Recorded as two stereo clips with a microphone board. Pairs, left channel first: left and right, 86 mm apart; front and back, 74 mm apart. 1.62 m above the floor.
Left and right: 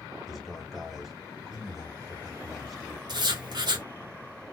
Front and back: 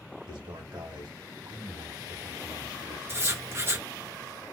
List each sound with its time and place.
0.3 s a man speaking: straight behind, 2.0 m
3.1 s writing: 125° right, 1.1 m